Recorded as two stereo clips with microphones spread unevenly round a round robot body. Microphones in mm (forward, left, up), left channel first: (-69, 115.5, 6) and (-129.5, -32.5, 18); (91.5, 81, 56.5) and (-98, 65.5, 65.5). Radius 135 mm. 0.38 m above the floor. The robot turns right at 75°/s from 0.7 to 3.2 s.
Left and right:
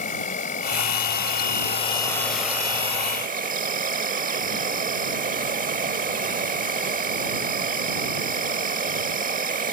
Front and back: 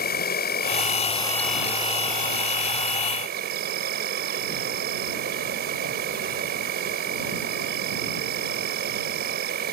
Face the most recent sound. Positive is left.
turn(degrees=-140)